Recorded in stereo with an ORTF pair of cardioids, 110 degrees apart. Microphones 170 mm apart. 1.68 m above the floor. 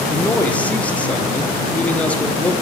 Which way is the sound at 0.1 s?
10° left.